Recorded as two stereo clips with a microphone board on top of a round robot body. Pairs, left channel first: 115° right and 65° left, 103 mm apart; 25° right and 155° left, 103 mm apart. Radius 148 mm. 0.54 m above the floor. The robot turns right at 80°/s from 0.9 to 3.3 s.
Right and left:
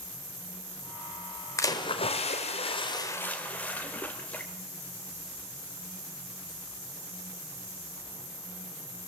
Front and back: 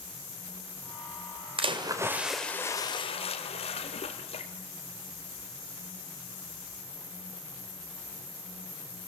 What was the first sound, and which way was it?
A splash, 175° right.